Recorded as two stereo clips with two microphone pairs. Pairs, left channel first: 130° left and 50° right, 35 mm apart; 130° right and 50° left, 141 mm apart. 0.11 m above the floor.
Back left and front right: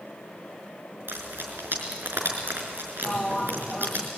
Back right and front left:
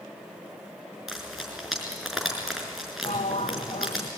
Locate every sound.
1.1 s frying: 35° right, 5.5 m
3.0 s a sliding door: 170° right, 0.8 m